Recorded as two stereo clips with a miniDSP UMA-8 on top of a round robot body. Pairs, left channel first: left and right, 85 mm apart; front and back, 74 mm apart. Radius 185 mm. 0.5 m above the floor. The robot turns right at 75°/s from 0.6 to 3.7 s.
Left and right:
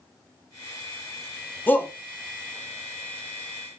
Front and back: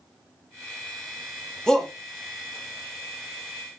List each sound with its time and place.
1.7 s a shout: 65° left, 0.9 m; by 1.9 s 85° left, 0.9 m